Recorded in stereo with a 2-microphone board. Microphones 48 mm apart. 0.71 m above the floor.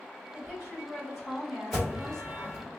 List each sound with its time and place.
0.3 s a woman speaking: 10° right (ahead or behind), 1.5 m; by 2.7 s 20° left (ahead or behind), 0.7 m
1.7 s an alarm: 5° right (ahead or behind), 1.5 m